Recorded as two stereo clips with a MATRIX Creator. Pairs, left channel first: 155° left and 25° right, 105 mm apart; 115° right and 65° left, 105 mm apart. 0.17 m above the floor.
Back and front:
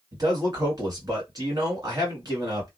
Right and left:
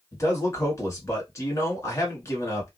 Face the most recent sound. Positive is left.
turn(degrees=-60)